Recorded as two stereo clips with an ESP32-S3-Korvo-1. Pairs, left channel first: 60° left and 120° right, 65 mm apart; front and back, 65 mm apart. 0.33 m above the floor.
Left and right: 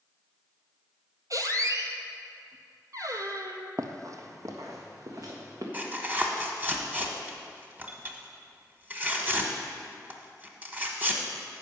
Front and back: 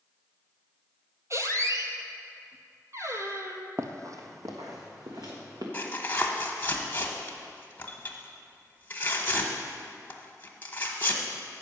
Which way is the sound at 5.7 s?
60° right.